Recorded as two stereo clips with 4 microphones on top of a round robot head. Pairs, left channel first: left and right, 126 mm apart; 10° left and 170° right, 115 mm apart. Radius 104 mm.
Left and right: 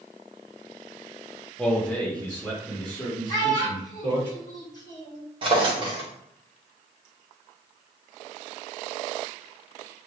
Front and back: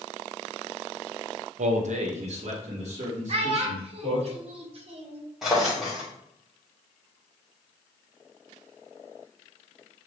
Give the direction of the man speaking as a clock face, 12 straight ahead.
6 o'clock.